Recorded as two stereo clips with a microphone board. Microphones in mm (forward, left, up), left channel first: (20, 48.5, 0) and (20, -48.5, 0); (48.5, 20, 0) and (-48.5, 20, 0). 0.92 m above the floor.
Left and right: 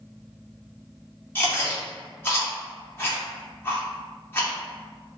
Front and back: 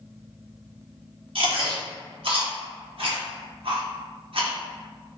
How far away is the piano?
I don't hear a piano.